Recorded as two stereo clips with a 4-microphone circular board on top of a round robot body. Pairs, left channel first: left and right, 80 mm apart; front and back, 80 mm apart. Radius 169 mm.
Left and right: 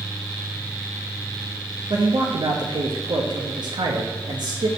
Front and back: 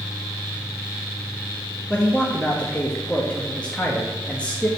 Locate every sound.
1.9 s a man speaking: 75° right, 1.3 m